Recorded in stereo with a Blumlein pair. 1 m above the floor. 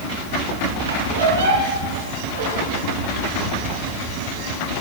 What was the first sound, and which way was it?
A squeak, 70° right.